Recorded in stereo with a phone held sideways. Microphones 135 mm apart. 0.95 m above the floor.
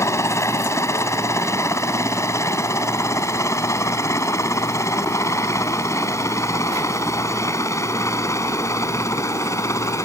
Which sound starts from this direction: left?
A helicopter, at 0.0 s.